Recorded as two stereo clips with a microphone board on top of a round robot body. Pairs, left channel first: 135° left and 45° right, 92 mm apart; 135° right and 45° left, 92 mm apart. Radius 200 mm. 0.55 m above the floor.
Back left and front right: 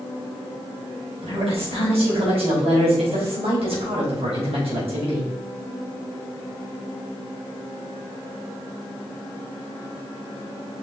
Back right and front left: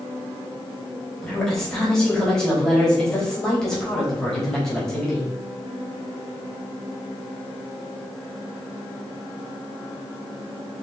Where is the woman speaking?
50° right, 4.5 m.